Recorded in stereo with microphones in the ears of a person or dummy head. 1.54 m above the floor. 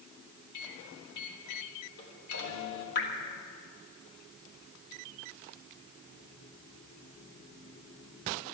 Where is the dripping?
60° left (ahead or behind), 1.9 m.